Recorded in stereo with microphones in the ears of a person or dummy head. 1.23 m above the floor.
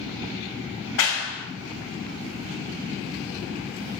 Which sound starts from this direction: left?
A clap, at 1.0 s.